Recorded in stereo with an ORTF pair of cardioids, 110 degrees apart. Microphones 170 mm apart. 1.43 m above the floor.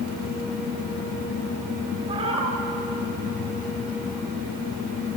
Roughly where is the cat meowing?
Ahead right.